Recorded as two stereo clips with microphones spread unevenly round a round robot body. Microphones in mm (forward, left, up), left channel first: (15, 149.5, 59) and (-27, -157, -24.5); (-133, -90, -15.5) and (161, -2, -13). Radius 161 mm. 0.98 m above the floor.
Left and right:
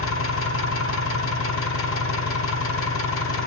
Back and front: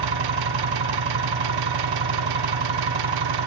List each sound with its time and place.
0.0 s an engine running: 35° left, 1.4 m